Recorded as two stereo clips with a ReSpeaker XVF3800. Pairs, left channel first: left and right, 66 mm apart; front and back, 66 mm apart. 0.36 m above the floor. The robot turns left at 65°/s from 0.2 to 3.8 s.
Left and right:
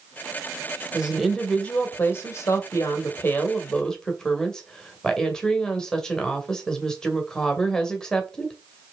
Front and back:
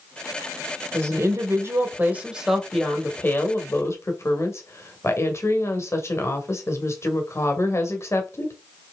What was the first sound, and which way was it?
A woman speaking, 160° right.